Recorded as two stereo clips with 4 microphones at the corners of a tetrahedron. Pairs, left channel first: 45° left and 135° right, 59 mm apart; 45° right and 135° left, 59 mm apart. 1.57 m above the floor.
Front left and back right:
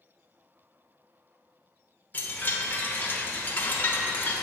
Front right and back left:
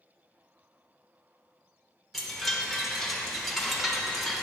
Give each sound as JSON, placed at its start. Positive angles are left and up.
{"t": 2.1, "sound": "a chime", "azimuth_deg": 40, "distance_m": 1.0}